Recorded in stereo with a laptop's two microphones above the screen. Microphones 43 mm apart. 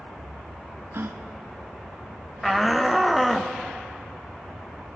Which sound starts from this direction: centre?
A shout, at 2.4 s.